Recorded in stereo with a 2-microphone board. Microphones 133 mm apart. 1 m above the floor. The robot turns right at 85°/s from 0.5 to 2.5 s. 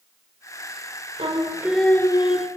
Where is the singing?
50° right, 2.5 m; by 2.5 s 60° left, 2.5 m.